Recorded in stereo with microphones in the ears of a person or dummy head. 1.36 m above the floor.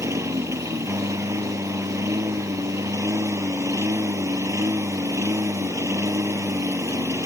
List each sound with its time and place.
0.0 s a lawn mower: 10° right (ahead or behind)